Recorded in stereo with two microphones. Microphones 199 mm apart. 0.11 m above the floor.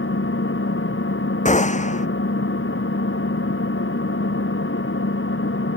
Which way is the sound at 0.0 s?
85° left.